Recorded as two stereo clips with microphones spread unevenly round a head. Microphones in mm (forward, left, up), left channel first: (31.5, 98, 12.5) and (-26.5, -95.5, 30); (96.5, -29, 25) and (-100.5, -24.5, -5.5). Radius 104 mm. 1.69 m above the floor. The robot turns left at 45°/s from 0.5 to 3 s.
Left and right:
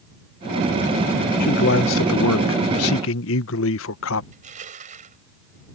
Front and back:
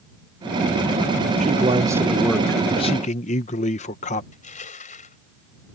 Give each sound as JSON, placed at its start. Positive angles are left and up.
{"t": 1.4, "sound": "a man speaking", "azimuth_deg": 120}
{"t": 4.3, "sound": "crushing", "azimuth_deg": -50}